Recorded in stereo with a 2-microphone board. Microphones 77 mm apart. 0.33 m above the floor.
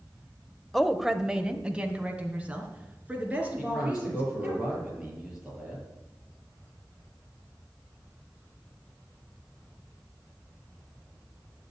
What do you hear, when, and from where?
0.7 s a woman speaking: 5° left (ahead or behind), 0.9 m; by 4.6 s 20° right (ahead or behind), 6 m
3.6 s a man speaking: 5° right (ahead or behind), 7.5 m